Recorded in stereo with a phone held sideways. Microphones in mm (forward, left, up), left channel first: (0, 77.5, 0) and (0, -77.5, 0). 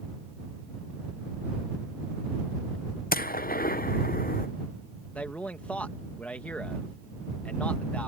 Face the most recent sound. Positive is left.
turn(degrees=10)  # may be behind; listen again after turning